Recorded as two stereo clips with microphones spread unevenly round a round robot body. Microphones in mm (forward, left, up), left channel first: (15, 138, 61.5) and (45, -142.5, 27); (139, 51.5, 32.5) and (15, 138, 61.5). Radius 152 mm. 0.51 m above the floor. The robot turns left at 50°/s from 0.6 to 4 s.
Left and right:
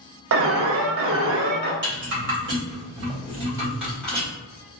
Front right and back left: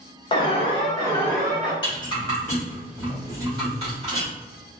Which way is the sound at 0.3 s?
70° right.